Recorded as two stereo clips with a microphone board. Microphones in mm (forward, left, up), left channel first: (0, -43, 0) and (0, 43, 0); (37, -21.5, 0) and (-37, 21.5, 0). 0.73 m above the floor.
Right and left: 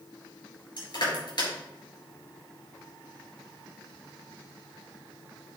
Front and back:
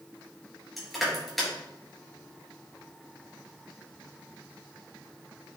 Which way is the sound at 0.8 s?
120° right.